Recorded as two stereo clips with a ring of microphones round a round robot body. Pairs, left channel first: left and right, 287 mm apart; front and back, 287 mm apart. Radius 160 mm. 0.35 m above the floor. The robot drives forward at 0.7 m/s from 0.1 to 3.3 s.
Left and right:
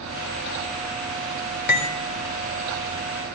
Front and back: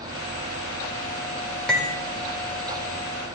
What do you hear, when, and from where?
1.7 s cutlery clinking: 85° left, 0.8 m; by 1.9 s 105° left, 0.8 m